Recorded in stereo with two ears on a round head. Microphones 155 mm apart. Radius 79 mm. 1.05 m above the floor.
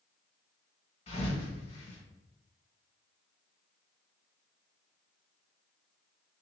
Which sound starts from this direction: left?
A thud, at 1.1 s.